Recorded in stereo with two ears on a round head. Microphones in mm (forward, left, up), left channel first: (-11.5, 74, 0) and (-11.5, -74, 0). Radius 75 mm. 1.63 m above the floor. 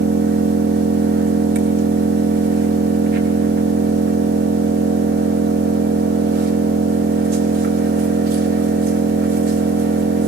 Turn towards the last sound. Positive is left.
turn(degrees=-60)  # may be behind; listen again after turning